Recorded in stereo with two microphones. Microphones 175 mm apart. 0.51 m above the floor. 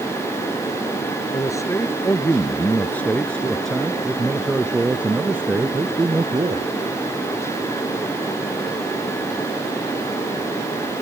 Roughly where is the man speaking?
Centre.